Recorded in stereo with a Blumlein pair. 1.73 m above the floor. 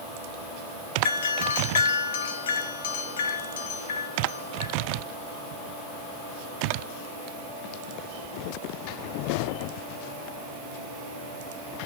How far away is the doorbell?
About 1.0 m.